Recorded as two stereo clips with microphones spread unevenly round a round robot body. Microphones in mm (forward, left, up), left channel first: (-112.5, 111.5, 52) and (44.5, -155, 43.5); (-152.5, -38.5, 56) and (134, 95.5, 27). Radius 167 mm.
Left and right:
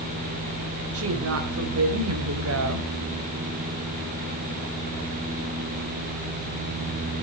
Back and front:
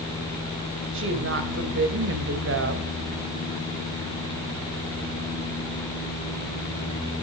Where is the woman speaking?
20° right, 2 m.